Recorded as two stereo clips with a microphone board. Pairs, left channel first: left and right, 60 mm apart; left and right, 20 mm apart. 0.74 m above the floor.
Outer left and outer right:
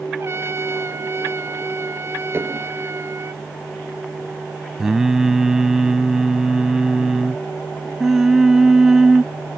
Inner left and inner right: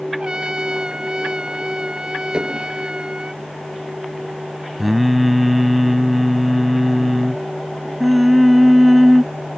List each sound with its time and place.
0.2 s a trumpet: 45° right (ahead or behind)
2.3 s dishes clattering: 40° right (ahead or behind)
4.8 s singing: 10° right (ahead or behind)